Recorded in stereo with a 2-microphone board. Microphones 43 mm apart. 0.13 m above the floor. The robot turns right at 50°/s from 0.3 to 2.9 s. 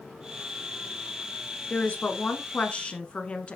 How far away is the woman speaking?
About 1.2 m.